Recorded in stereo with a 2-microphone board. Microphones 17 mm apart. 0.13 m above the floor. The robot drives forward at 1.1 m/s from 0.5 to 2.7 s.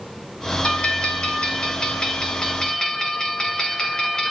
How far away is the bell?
About 2.5 m.